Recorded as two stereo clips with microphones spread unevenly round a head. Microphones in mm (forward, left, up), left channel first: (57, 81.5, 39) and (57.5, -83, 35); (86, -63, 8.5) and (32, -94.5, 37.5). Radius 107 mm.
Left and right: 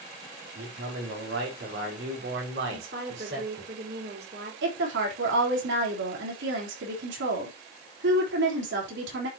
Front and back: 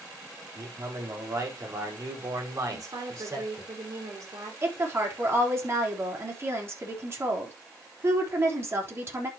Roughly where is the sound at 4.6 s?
Right.